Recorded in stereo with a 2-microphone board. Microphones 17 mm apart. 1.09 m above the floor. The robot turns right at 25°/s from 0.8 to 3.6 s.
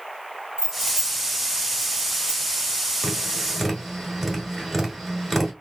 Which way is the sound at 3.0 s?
25° right (ahead or behind).